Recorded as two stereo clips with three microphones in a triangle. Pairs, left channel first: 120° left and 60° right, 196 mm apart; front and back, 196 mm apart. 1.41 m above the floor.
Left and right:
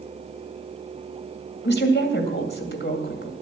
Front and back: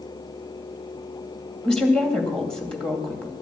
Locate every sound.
1.6 s a woman speaking: 85° left, 2.5 m